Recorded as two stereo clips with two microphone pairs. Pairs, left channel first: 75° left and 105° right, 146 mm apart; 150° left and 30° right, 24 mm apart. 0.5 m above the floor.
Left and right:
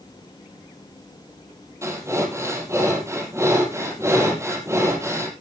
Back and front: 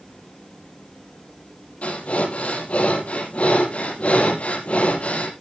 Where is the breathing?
175° right, 4.5 m.